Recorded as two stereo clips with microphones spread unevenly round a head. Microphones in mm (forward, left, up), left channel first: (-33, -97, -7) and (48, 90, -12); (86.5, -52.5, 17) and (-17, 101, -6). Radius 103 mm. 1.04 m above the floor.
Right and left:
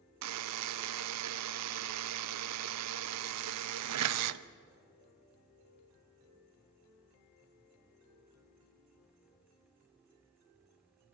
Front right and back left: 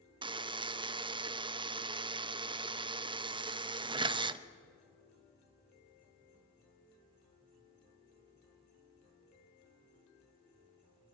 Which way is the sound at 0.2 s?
60° left.